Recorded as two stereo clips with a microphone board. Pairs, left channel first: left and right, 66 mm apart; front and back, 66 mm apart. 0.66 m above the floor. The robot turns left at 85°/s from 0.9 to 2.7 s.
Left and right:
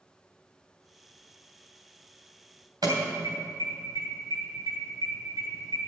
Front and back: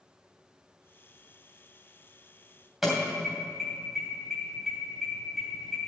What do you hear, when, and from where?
2.8 s an alarm: 95° right, 3 m